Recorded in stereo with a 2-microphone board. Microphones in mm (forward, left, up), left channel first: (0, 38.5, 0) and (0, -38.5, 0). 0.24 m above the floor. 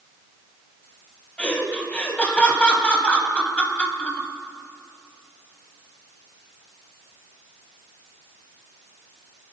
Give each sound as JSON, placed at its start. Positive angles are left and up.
{"t": 1.4, "sound": "laughter", "side_deg": 20, "distance_m": 1.6}